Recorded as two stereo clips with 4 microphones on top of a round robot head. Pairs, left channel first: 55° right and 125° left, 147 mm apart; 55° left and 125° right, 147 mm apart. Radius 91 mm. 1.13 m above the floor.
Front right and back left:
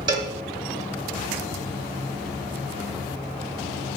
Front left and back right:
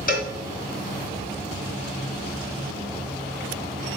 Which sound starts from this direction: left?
A cowbell, at 0.1 s.